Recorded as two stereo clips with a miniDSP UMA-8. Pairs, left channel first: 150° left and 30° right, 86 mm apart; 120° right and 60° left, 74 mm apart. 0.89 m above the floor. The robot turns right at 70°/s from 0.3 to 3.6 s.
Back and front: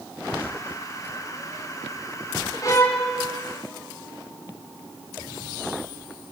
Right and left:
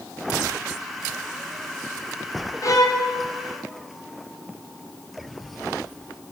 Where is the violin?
165° right, 3 m; by 3.0 s 135° right, 3 m.